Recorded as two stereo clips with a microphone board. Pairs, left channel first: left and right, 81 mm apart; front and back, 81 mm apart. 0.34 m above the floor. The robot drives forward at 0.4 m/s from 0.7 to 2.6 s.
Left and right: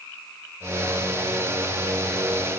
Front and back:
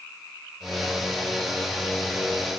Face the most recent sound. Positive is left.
No sound to turn to.